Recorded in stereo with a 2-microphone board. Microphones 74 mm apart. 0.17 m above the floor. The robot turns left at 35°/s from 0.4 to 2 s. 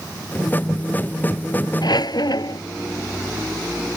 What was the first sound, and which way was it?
A squeak, 70° left (ahead or behind).